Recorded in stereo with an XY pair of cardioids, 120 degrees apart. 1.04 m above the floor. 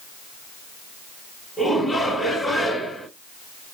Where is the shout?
5° left, 2.0 m.